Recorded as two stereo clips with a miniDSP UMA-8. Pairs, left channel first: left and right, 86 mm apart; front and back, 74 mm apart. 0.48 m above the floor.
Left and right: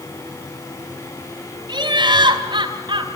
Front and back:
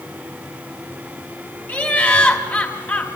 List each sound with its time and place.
1.7 s laughter: 65° right, 4.5 m